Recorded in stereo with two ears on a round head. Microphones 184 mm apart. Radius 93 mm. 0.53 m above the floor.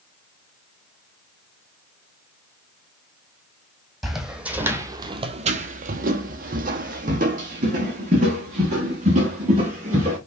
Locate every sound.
4.0 s footsteps: centre (ahead or behind), 1.0 m; by 10.2 s 30° right (ahead or behind), 2.5 m